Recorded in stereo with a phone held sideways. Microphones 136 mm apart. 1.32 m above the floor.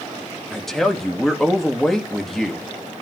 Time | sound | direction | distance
0.5 | a man speaking | centre (ahead or behind) | 1.6 m